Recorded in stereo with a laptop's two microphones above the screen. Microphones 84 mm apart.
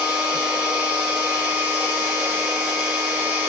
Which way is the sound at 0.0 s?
15° right (ahead or behind).